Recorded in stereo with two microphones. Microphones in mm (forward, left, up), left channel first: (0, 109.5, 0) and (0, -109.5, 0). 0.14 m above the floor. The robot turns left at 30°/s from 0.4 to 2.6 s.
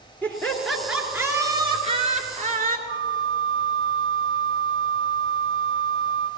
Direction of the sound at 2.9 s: 80° right.